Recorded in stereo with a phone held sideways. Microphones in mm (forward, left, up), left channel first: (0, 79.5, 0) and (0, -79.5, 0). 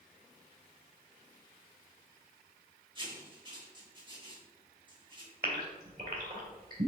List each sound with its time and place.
3.0 s writing: 30° right (ahead or behind), 2.5 m
5.4 s a gasp: 70° right (ahead or behind), 2 m